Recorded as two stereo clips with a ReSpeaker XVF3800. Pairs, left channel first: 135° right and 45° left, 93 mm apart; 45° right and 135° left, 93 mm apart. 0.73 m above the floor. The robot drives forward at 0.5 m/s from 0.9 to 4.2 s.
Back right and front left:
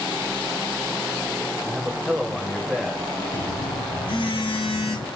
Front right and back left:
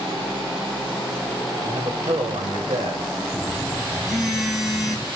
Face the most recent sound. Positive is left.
turn(degrees=-140)